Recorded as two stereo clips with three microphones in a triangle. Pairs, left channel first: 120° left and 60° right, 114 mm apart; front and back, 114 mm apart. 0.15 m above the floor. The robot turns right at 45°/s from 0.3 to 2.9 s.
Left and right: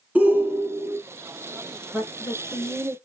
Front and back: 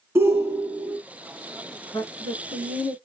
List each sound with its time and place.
0.1 s a shout: 130° right, 1.7 m; by 1.0 s 95° right, 1.7 m
1.9 s a woman speaking: 20° left, 1.9 m; by 3.0 s 65° left, 1.9 m